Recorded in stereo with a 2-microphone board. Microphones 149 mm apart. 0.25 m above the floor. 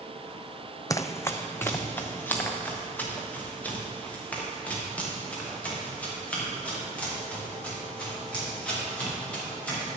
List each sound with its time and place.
0.9 s running footsteps: 25° left (ahead or behind), 0.5 m; by 9.9 s 10° left (ahead or behind), 8 m